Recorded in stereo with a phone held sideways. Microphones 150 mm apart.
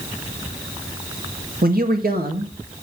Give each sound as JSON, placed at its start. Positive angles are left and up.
{"t": 1.6, "sound": "a man speaking", "side_deg": -80, "distance_m": 2.0}